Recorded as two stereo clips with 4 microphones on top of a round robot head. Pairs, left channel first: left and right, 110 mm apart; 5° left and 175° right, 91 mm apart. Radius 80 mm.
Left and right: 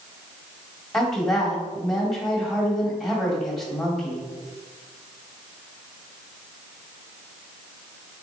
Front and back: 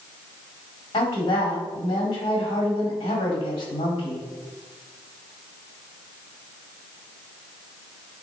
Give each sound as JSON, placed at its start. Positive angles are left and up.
{"t": 0.9, "sound": "a woman speaking", "azimuth_deg": 5, "distance_m": 1.7}